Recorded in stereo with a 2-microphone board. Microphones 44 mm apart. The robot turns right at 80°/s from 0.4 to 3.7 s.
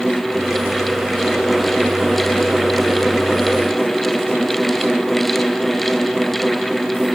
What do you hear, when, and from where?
Only background noise.